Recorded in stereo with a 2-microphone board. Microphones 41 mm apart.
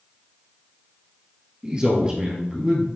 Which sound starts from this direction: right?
A man speaking, at 1.6 s.